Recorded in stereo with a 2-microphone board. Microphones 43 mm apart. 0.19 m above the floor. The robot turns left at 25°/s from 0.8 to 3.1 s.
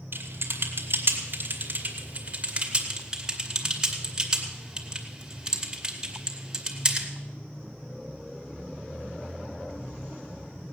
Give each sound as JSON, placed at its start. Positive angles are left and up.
{"t": 0.1, "sound": "typing on a keyboard", "side_deg": -55, "distance_m": 2.0}